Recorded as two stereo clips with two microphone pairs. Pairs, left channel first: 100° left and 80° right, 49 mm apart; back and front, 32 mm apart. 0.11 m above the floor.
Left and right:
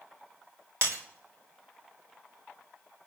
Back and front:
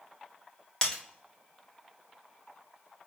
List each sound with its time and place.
0.8 s breaking glass: 115° right, 3.5 m